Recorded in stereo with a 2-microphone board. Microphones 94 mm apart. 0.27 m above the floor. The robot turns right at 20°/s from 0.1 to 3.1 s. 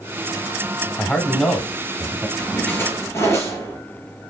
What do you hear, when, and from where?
1.0 s a man speaking: 10° left (ahead or behind), 1.1 m; by 2.3 s 5° right (ahead or behind), 1.1 m
2.4 s a splash: 15° left (ahead or behind), 3.5 m; by 3.8 s 25° left (ahead or behind), 3.5 m